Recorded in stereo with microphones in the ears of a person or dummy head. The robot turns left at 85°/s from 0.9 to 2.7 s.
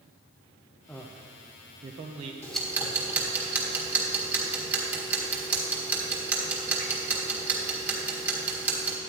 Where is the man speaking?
5° left (ahead or behind), 0.6 m; by 2.3 s 20° right (ahead or behind), 0.6 m.